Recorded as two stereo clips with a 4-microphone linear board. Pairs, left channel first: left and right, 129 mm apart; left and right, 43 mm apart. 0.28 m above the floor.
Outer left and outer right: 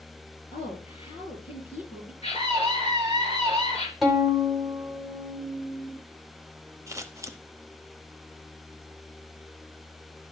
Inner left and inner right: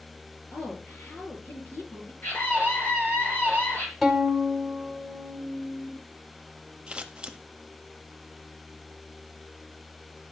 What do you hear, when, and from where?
0.5 s a woman speaking: 55° left (ahead or behind), 5 m
2.2 s a scream: 55° left (ahead or behind), 3.5 m
4.0 s a violin: centre (ahead or behind), 1.6 m
6.9 s scissors: 25° right (ahead or behind), 0.6 m